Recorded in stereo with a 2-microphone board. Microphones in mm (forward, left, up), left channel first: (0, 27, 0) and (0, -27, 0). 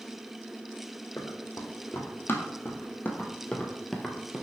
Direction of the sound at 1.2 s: 60° left (ahead or behind).